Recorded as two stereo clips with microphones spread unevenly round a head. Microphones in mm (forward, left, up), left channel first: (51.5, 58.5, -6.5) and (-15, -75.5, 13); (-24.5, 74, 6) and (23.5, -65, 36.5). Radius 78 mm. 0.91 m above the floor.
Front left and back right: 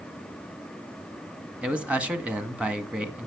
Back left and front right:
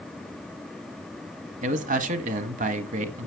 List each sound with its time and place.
1.6 s a man speaking: 30° right, 1.5 m